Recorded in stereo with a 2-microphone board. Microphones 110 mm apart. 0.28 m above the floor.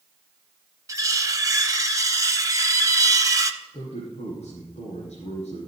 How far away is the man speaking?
About 3.5 m.